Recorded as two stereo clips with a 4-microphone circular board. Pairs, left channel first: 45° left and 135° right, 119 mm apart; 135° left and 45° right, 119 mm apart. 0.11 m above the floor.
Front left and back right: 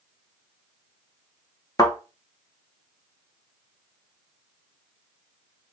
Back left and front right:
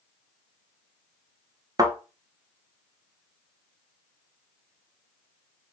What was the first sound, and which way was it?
A thud, straight ahead.